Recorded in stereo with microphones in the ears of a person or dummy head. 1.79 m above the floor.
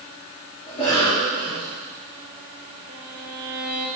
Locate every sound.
0.7 s a cough: 30° left (ahead or behind), 5 m
2.9 s a violin: 45° right (ahead or behind), 2.5 m